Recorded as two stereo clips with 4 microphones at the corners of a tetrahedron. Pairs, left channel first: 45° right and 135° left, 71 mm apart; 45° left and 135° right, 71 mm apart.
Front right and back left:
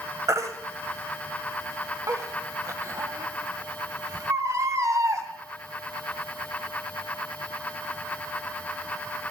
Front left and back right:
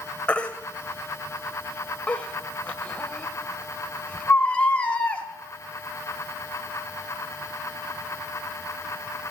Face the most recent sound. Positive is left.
turn(degrees=115)